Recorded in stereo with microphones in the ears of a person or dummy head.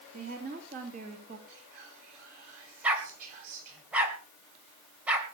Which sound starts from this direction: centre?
A dog barking, at 2.8 s.